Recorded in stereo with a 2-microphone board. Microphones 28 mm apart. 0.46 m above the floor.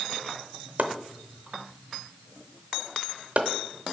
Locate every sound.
0.8 s chopping: 55° right (ahead or behind), 0.7 m